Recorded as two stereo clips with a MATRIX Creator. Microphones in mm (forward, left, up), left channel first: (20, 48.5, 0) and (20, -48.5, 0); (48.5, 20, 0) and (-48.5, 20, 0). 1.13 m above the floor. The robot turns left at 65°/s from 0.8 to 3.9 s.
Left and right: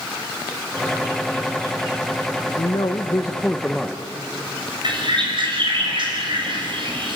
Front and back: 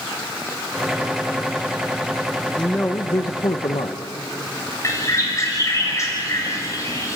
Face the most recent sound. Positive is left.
turn(degrees=-60)